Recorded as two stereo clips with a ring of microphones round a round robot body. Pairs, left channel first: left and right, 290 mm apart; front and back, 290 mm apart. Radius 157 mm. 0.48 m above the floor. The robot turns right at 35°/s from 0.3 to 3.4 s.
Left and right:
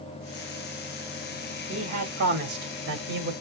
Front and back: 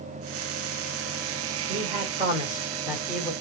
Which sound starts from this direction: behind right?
A man speaking, at 1.7 s.